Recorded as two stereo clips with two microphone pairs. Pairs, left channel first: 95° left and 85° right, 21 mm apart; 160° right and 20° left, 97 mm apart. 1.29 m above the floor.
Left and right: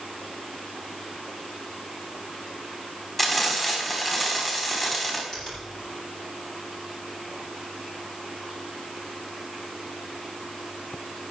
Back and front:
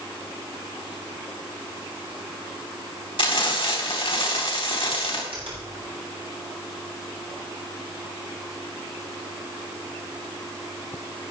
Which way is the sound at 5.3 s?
35° left.